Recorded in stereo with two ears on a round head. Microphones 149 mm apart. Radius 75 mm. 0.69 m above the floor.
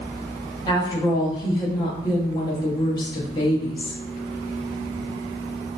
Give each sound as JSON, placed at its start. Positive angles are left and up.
{"t": 0.7, "sound": "a woman speaking", "side_deg": 25, "distance_m": 0.7}